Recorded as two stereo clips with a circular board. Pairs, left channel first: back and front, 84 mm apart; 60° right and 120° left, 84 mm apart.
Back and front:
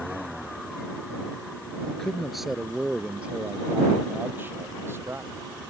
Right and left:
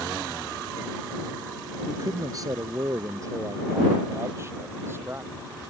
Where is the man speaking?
100° left; by 5.5 s 60° left.